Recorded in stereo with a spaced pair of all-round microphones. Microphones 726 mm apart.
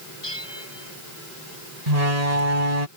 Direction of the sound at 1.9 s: 60° right (ahead or behind).